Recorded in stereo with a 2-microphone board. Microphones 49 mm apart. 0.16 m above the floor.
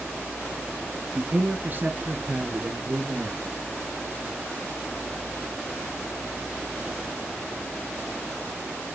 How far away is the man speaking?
About 1.1 m.